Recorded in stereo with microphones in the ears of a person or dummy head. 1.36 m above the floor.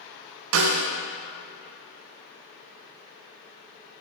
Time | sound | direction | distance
0.5 | a snare drum | 80° right | 0.6 m